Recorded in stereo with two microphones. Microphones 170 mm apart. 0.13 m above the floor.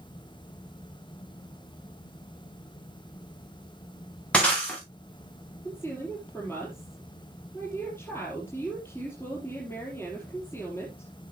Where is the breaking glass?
5° left (ahead or behind), 7 m.